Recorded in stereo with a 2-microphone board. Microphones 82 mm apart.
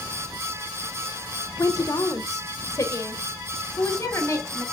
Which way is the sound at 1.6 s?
45° left (ahead or behind).